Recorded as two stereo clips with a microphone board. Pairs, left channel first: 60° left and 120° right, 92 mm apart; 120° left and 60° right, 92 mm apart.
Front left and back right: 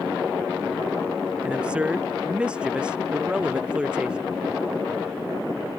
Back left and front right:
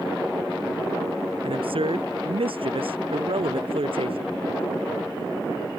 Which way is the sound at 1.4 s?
40° right.